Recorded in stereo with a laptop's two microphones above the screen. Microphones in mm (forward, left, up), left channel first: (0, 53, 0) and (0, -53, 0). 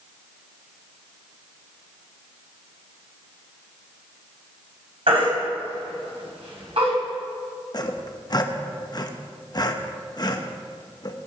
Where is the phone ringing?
I don't hear a phone ringing.